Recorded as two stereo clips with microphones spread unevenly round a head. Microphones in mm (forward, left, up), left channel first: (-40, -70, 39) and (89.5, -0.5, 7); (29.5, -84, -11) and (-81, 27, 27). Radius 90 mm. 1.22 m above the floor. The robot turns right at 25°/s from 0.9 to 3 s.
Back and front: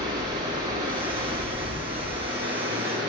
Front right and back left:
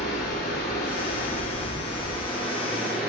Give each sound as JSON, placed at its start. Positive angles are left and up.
{"t": 0.0, "sound": "running water", "azimuth_deg": 0, "distance_m": 3.0}